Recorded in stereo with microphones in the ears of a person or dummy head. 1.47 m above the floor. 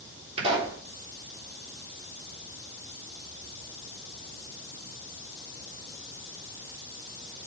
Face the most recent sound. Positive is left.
turn(degrees=-35)  # may be behind; listen again after turning